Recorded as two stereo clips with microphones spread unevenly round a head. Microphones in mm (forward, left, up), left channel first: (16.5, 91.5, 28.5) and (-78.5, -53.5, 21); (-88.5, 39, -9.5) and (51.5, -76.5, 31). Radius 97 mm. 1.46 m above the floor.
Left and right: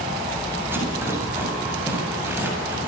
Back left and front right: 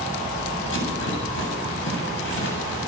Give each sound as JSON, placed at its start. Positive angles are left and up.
{"t": 0.7, "sound": "a rattle", "azimuth_deg": 160, "distance_m": 8.0}